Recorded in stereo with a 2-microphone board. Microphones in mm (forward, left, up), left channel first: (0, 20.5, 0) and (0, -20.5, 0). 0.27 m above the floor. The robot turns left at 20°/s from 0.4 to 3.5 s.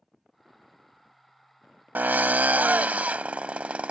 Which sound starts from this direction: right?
A drill, at 1.9 s.